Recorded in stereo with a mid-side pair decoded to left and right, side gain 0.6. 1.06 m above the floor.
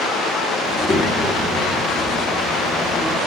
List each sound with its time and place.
0.7 s a child speaking: 30° left, 1.6 m